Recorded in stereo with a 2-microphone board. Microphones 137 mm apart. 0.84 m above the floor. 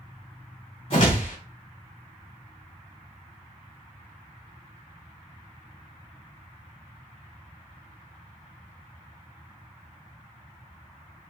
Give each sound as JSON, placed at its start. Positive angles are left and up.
{"t": 0.9, "sound": "a whoosh", "side_deg": 50, "distance_m": 1.7}